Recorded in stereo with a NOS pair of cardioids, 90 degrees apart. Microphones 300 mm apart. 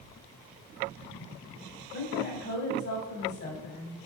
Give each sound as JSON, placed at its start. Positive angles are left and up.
{"t": 1.9, "sound": "a woman speaking", "azimuth_deg": 65, "distance_m": 5.5}